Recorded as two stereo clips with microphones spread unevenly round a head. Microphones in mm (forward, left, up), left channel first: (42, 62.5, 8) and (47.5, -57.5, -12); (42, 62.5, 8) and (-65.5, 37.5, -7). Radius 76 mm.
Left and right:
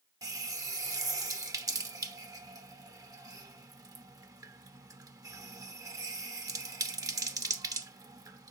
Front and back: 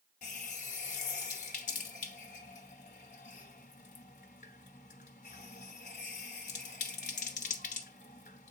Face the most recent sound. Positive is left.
turn(degrees=-25)